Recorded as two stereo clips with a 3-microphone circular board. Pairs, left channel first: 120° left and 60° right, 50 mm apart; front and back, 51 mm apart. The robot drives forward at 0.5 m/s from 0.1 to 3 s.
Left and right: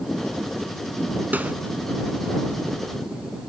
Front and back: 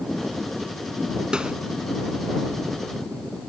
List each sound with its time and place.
1.3 s a snare drum: 110° right